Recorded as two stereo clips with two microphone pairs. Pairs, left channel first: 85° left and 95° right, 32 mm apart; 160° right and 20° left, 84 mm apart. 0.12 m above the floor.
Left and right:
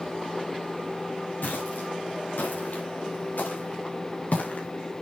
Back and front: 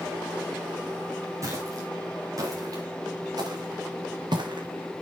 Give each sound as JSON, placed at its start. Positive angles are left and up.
{"t": 1.4, "sound": "footsteps", "azimuth_deg": 75, "distance_m": 7.0}